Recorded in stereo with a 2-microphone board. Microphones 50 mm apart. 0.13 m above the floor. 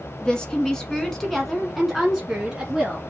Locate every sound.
0.2 s a woman speaking: 20° left (ahead or behind), 1.2 m; by 3.0 s 10° right (ahead or behind), 1.5 m